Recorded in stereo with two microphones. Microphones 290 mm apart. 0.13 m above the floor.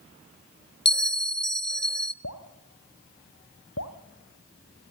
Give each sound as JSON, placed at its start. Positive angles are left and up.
{"t": 0.8, "sound": "a bell", "side_deg": 40, "distance_m": 0.6}
{"t": 2.2, "sound": "dripping", "side_deg": 60, "distance_m": 1.8}